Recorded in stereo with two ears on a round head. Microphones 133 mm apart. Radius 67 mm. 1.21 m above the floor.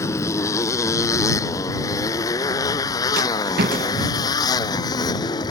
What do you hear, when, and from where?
0.0 s a motorcycle: 20° left (ahead or behind); by 5.5 s 25° left (ahead or behind)
3.2 s a rattle: 65° right (ahead or behind)